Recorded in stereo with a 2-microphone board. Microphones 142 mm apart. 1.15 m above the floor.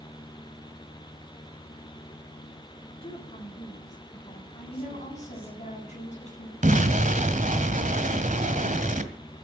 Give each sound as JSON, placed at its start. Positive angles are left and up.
{"t": 3.0, "sound": "a woman speaking", "side_deg": 45, "distance_m": 3.0}
{"t": 4.7, "sound": "a woman speaking", "side_deg": 55, "distance_m": 7.0}
{"t": 6.6, "sound": "an explosion", "side_deg": -65, "distance_m": 1.8}